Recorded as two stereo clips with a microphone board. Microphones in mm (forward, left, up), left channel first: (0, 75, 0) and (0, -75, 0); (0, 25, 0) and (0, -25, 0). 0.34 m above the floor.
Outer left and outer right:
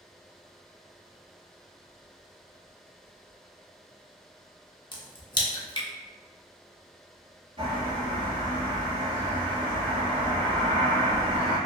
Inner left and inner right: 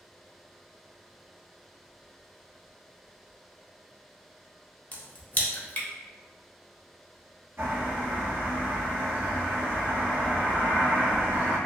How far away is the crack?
About 0.5 m.